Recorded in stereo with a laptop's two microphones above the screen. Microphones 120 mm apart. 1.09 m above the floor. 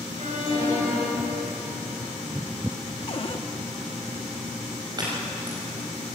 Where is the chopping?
35° right (ahead or behind), 5 m.